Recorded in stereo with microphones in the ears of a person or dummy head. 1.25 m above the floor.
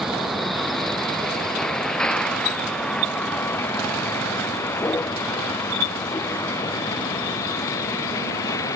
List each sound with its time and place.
0.0 s a vehicle: 5° left (ahead or behind); by 8.8 s 20° left (ahead or behind)